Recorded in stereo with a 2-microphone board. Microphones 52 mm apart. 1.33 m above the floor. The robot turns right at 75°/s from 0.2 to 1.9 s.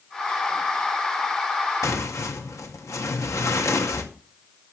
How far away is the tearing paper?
About 2 m.